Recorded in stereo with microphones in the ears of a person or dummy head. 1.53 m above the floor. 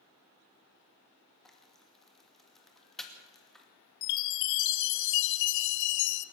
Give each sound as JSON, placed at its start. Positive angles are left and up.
{"t": 1.4, "sound": "frying", "side_deg": 5, "distance_m": 2.5}
{"t": 4.0, "sound": "a chime", "side_deg": 65, "distance_m": 0.7}